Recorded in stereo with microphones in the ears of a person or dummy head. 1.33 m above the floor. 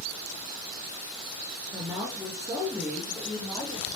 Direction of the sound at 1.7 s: 20° right (ahead or behind).